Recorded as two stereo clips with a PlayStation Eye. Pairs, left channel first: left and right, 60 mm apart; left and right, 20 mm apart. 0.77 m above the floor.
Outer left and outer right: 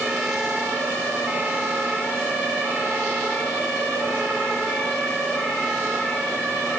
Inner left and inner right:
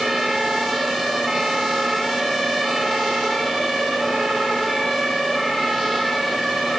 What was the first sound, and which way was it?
Only background noise.